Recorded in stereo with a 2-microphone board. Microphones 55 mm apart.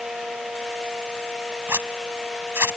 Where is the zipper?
50° right (ahead or behind).